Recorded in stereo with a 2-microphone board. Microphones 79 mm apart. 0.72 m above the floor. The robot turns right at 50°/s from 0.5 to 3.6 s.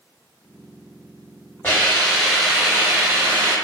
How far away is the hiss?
About 1.6 m.